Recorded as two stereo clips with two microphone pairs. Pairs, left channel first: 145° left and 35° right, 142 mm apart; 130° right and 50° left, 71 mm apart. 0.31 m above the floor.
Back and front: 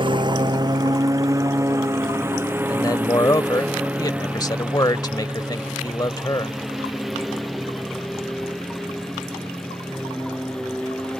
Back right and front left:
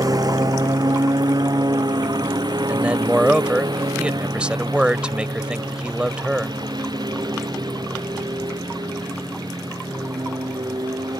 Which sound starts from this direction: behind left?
A man speaking, at 2.7 s.